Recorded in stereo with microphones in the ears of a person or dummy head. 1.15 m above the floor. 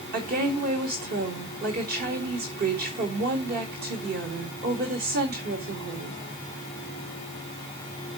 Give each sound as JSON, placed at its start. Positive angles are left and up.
{"t": 0.1, "sound": "a woman speaking", "side_deg": -55, "distance_m": 4.0}